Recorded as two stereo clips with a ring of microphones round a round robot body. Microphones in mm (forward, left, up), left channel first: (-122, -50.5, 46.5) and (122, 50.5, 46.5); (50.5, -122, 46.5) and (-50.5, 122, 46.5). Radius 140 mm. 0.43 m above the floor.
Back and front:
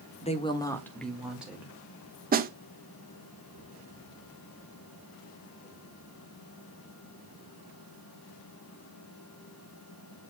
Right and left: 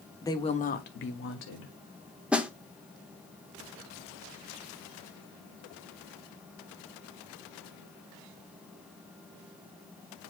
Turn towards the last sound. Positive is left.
turn(degrees=30)